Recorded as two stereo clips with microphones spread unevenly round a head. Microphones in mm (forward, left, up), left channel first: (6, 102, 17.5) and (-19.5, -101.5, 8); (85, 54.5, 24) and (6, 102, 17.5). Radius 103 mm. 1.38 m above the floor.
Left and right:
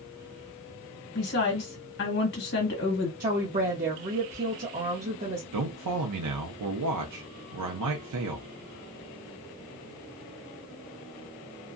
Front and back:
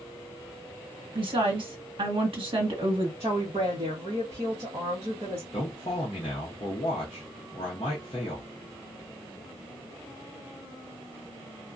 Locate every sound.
1.1 s a woman speaking: 120° left, 1.6 m
3.2 s a woman speaking: 150° right, 1.0 m
5.5 s a man speaking: 95° right, 0.7 m